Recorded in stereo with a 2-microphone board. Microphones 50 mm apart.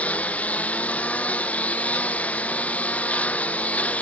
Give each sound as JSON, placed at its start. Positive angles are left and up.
{"t": 0.0, "sound": "a lawn mower", "side_deg": 25}